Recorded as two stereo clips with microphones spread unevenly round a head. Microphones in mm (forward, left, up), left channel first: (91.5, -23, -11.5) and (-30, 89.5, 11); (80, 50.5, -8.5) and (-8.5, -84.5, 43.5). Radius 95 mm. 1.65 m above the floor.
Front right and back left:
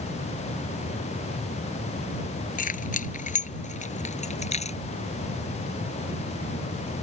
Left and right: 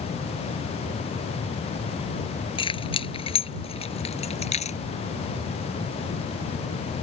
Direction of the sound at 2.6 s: 5° right.